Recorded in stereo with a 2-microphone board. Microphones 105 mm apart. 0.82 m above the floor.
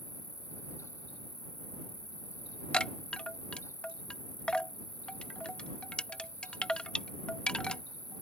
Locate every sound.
0.0 s an insect: 40° left (ahead or behind)
2.7 s a chime: 10° left (ahead or behind)